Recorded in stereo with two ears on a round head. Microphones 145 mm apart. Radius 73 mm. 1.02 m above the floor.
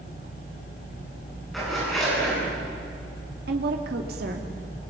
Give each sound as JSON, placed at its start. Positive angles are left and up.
{"t": 1.5, "sound": "a zipper", "side_deg": 0, "distance_m": 9.5}
{"t": 3.5, "sound": "a woman speaking", "side_deg": -70, "distance_m": 2.5}